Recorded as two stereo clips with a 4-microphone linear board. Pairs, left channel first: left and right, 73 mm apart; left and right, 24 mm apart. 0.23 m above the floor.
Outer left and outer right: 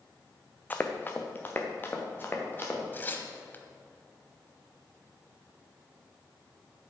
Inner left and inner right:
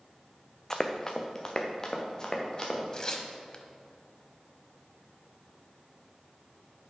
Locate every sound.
0.7 s running footsteps: 20° left (ahead or behind), 0.8 m; by 2.8 s 30° left (ahead or behind), 2.5 m
2.9 s tearing paper: 30° left (ahead or behind), 0.9 m